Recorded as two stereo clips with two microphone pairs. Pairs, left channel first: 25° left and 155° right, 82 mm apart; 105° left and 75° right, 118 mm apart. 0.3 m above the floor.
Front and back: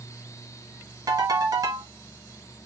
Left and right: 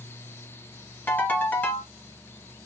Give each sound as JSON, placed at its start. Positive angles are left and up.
{"t": 1.1, "sound": "a ringtone", "azimuth_deg": 175, "distance_m": 1.3}